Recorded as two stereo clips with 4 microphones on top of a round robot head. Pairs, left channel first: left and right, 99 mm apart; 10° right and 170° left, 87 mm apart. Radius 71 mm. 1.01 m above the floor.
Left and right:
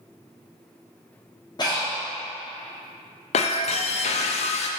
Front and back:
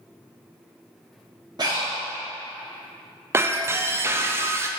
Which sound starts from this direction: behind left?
Breathing, at 1.6 s.